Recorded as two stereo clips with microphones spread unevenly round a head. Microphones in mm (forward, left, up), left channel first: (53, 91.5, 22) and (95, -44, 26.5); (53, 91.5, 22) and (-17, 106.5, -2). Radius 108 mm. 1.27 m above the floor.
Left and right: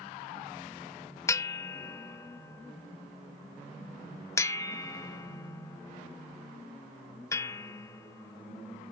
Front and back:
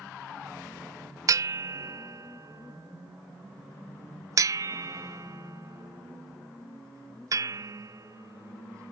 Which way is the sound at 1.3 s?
Straight behind.